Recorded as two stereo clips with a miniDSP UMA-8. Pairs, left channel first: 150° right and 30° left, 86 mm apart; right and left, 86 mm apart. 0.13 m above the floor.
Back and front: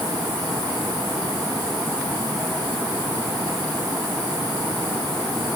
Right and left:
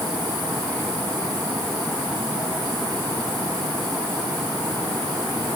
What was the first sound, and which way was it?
Only background noise.